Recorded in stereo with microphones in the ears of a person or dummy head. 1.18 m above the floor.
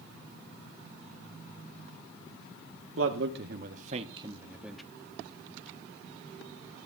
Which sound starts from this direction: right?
A man speaking, at 3.0 s.